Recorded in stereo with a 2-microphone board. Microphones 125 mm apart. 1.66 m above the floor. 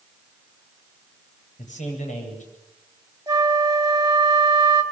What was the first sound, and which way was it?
A man speaking, 80° left.